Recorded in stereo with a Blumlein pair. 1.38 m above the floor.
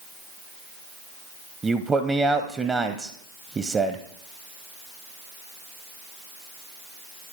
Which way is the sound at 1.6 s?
15° right.